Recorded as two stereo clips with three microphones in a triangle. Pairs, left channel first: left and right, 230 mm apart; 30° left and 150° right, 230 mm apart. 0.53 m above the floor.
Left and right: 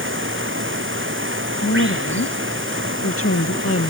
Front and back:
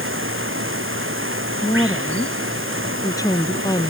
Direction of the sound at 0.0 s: 120° right.